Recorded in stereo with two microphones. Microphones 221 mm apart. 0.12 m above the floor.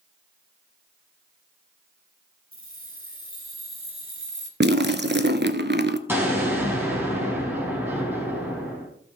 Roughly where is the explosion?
Centre.